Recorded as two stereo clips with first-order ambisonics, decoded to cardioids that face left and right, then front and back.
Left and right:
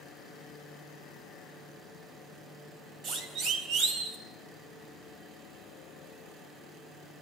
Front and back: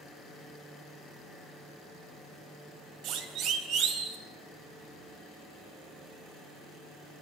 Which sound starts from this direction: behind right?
A siren, at 3.0 s.